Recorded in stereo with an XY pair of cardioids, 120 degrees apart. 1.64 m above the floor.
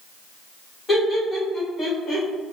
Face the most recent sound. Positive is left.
turn(degrees=50)